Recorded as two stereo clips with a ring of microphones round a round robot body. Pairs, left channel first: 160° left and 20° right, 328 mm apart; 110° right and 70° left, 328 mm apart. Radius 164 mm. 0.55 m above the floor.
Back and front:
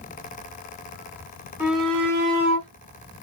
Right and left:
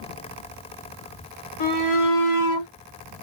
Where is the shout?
105° right, 2 m; by 2.7 s 140° right, 2.5 m.